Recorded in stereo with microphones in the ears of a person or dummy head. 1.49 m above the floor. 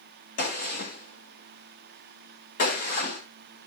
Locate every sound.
0.4 s a gunshot: 50° left (ahead or behind), 2.5 m